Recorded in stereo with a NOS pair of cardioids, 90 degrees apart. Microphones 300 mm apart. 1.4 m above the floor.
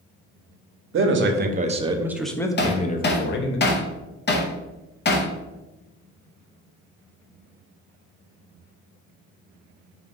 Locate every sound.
0.9 s a man speaking: 45° right, 1.0 m; by 3.6 s 45° left, 1.0 m
2.6 s hammering: 35° left, 0.9 m